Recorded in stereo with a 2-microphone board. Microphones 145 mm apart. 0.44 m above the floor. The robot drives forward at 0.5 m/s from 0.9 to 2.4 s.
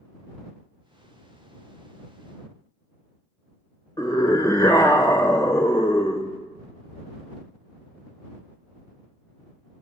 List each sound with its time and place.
4.0 s a scream: 25° left (ahead or behind), 1.6 m